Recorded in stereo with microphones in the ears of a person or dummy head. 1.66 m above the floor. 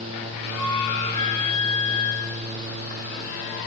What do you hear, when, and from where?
0.6 s a flute: 40° left (ahead or behind), 5 m